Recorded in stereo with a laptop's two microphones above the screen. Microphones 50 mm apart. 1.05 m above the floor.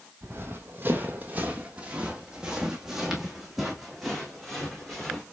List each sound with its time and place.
0.2 s running footsteps: 45° right (ahead or behind), 1.5 m; by 5.2 s 10° left (ahead or behind), 3 m